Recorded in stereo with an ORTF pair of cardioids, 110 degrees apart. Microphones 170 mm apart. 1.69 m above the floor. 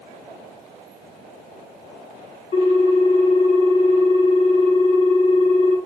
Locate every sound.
2.5 s a ringtone: 40° left, 1.7 m